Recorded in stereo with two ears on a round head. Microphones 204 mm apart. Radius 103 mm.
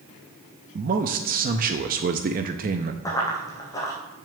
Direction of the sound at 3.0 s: 15° left (ahead or behind).